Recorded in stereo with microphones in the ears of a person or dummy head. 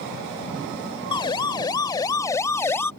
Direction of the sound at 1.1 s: 25° left (ahead or behind).